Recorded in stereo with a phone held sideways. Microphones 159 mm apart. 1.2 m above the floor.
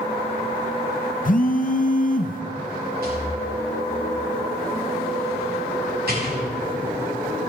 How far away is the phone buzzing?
About 0.7 m.